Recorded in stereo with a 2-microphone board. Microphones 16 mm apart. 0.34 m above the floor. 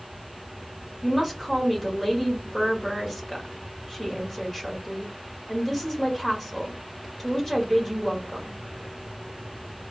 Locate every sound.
1.0 s a woman speaking: 20° left (ahead or behind), 1.2 m